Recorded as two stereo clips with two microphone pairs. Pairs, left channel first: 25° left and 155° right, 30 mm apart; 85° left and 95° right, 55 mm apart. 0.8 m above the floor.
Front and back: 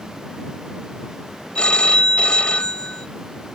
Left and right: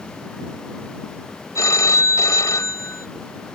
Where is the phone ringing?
70° left.